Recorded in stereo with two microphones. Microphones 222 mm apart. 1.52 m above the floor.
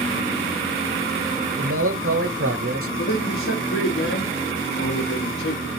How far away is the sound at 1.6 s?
About 0.8 m.